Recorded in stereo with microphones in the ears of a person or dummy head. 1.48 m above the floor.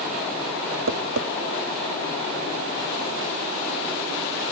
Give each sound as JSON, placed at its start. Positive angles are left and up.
{"t": 0.9, "sound": "tapping", "side_deg": -80}